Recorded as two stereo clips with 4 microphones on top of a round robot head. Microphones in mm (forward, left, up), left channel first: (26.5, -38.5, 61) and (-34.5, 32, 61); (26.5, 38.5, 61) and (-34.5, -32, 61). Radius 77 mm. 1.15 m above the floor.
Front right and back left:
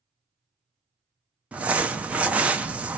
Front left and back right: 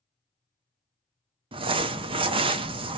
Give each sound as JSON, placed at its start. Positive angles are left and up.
{"t": 1.5, "sound": "crumpling", "azimuth_deg": -155, "distance_m": 0.5}